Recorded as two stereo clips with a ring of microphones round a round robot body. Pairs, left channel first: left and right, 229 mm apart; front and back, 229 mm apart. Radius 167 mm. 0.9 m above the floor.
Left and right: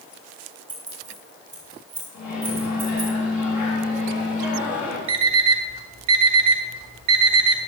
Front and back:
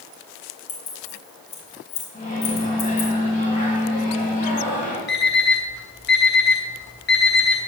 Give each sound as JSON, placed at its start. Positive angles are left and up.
{"t": 0.7, "sound": "keys jangling", "azimuth_deg": -5, "distance_m": 4.0}
{"t": 2.1, "sound": "a microwave", "azimuth_deg": 55, "distance_m": 4.5}
{"t": 5.1, "sound": "an alarm clock", "azimuth_deg": -60, "distance_m": 1.1}